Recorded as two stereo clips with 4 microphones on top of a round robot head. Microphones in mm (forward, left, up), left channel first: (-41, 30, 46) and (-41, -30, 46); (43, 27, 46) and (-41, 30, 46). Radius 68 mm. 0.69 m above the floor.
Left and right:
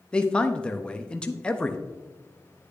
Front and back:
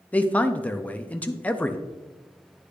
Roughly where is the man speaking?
Ahead left.